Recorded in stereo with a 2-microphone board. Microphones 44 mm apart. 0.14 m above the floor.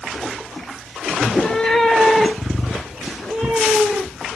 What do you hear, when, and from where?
1.2 s a cat meowing: 20° left (ahead or behind), 0.6 m; by 4.3 s 5° right (ahead or behind), 3 m